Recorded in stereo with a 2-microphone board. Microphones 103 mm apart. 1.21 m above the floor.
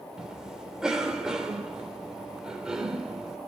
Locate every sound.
0.2 s a cough: 5° right (ahead or behind), 3.5 m